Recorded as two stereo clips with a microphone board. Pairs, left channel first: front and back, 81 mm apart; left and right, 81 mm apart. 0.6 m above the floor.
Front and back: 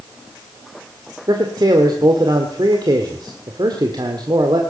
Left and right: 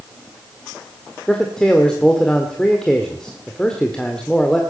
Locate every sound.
1.3 s a man speaking: 170° left, 1.6 m